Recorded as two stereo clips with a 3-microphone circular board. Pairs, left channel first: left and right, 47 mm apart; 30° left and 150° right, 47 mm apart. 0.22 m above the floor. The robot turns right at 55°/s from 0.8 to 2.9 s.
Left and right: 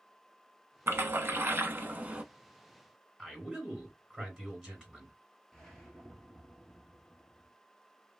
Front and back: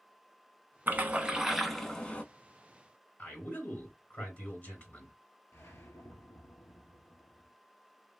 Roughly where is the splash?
Right.